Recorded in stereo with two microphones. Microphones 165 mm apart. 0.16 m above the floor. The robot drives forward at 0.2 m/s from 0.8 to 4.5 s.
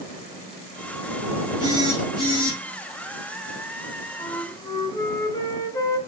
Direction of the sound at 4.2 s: 25° left (ahead or behind).